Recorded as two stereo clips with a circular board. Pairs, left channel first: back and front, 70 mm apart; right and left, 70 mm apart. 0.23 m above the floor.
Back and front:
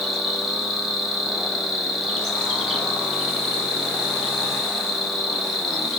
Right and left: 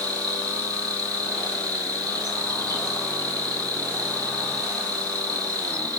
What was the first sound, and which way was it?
An insect, 90° left.